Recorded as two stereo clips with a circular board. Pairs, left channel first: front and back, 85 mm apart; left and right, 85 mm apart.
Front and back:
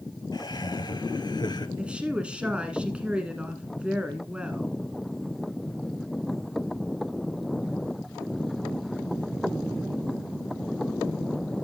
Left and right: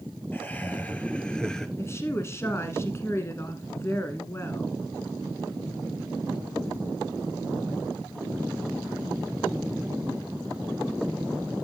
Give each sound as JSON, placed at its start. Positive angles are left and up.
{"t": 0.3, "sound": "laughter", "azimuth_deg": 20, "distance_m": 2.5}
{"t": 1.8, "sound": "a woman speaking", "azimuth_deg": 115, "distance_m": 1.3}